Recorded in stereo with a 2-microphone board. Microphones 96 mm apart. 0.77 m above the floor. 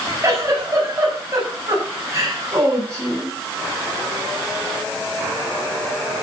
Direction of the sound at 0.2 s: 30° right (ahead or behind).